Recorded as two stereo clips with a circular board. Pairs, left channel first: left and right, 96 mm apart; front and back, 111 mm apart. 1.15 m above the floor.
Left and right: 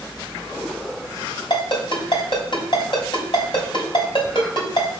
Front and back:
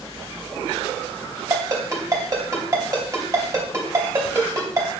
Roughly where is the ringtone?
Behind left.